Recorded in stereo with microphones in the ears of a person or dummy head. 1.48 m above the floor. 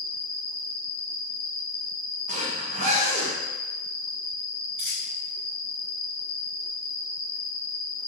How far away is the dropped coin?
About 1.8 m.